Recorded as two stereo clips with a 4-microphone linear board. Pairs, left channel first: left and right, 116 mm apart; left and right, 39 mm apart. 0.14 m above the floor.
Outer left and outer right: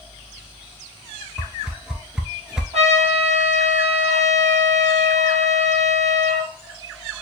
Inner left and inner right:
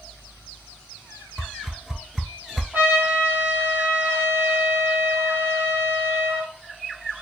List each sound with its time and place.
1.4 s a whoosh: 5° right (ahead or behind), 0.6 m
2.7 s a trumpet: 70° right (ahead or behind), 2.5 m